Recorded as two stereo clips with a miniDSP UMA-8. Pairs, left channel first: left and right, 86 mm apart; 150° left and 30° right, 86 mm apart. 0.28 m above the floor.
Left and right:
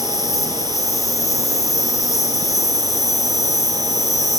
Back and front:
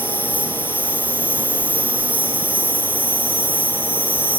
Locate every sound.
0.0 s an insect: 40° left, 2.5 m